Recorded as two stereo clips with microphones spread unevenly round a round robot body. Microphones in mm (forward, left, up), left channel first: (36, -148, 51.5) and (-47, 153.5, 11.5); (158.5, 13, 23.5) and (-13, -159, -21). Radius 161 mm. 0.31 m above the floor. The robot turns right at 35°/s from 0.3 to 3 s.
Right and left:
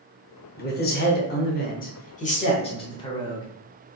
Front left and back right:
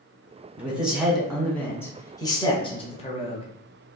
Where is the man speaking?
90° right, 1.1 m; by 3.5 s 5° right, 1.1 m.